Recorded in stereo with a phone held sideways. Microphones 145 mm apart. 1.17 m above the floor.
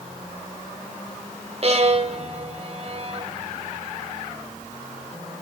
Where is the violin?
45° right (ahead or behind), 1.3 m.